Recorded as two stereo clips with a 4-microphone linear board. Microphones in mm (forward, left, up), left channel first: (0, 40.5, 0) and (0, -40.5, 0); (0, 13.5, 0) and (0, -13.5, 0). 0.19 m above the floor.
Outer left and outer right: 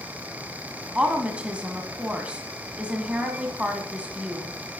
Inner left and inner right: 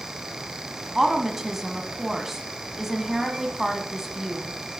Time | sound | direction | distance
0.9 | a woman speaking | 15° right (ahead or behind) | 1.3 m